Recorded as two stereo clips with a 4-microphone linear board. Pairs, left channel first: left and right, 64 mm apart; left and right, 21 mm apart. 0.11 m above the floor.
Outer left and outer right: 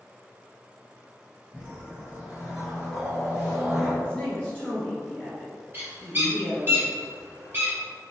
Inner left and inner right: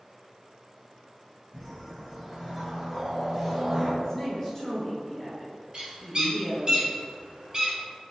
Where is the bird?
35° right (ahead or behind), 1.4 m.